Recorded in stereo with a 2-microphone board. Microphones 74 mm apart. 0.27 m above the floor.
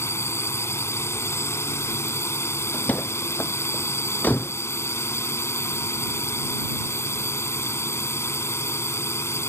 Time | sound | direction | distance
0.0 | a drone | 40° left (ahead or behind) | ?
2.7 | a door slam | 20° left (ahead or behind) | ?